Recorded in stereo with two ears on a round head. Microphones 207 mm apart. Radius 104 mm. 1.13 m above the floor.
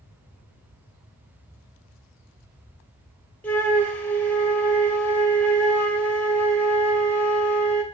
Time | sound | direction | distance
3.4 | a flute | 5° left (ahead or behind) | 0.6 m